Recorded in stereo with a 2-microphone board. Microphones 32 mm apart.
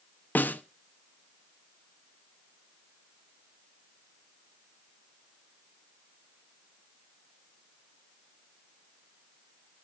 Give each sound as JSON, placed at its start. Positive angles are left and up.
{"t": 0.3, "sound": "a snare drum", "side_deg": 65, "distance_m": 0.8}